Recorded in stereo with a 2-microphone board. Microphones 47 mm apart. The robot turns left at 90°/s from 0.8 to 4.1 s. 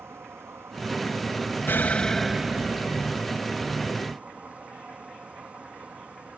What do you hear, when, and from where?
0.0 s an insect: 95° right; by 6.4 s 35° right
1.7 s an explosion: 50° left; by 3.3 s 90° right